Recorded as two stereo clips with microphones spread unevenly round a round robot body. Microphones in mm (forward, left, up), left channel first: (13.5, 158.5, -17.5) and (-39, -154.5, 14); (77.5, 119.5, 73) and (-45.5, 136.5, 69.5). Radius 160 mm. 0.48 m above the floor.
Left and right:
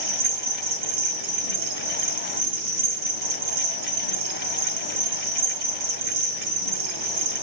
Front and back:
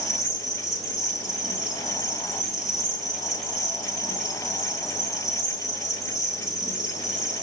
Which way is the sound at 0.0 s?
95° right.